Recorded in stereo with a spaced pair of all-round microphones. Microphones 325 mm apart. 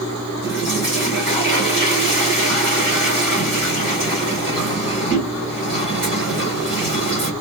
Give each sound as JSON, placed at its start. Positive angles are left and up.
{"t": 0.4, "sound": "a toilet flushing", "side_deg": -35, "distance_m": 3.0}